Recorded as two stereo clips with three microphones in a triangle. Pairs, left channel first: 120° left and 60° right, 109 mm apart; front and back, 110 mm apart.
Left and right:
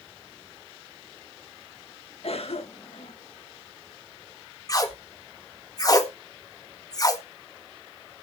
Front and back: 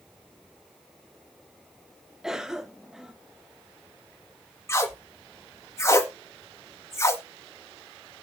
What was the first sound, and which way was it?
A cough, 95° left.